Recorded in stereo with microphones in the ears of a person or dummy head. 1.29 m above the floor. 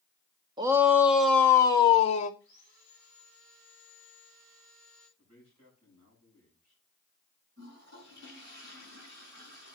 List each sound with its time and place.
0.6 s a shout: 25° right (ahead or behind), 0.9 m; by 2.3 s 35° left (ahead or behind), 0.9 m
2.4 s sawing: 40° right (ahead or behind), 9.5 m
5.2 s a man speaking: 35° right (ahead or behind), 9.5 m
7.6 s a toilet flushing: 60° right (ahead or behind), 6 m